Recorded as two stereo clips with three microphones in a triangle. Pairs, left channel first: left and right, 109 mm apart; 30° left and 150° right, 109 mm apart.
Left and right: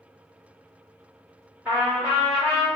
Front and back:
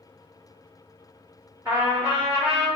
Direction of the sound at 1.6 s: 140° right.